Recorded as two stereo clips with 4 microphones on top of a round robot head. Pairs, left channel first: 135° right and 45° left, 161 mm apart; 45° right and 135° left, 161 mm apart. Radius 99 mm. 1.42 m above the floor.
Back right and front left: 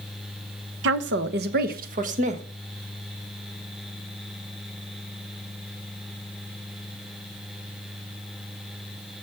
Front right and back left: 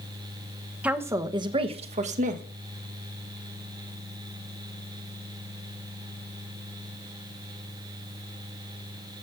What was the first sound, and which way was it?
A woman speaking, 55° left.